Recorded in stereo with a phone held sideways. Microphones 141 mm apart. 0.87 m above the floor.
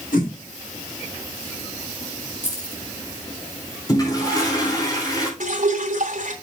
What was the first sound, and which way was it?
A whoosh, 75° left (ahead or behind).